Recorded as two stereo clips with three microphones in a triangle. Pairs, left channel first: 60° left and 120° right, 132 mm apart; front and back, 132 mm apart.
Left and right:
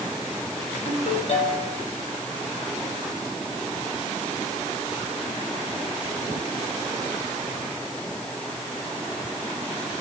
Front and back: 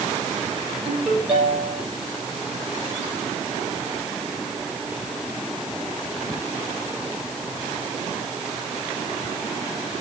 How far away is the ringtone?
About 6.5 m.